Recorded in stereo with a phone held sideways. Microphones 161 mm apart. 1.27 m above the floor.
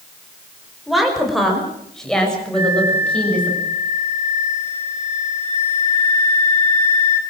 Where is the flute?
45° left (ahead or behind), 4.5 m.